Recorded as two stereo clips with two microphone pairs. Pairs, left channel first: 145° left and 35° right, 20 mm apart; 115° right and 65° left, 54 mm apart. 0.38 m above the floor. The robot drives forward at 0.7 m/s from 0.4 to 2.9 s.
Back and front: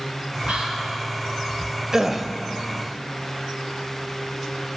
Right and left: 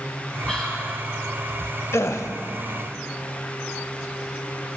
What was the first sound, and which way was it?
Whispering, 35° right.